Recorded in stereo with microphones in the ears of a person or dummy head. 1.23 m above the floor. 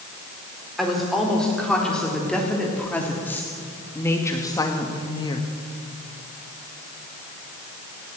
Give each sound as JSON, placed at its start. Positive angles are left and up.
{"t": 0.8, "sound": "a woman speaking", "side_deg": 0, "distance_m": 3.5}